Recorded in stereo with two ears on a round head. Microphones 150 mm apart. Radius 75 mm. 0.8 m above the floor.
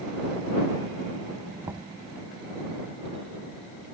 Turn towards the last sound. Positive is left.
turn(degrees=-15)  # may be behind; listen again after turning